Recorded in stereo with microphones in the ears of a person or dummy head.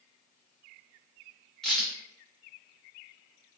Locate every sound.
1.6 s a crack: centre (ahead or behind), 1.0 m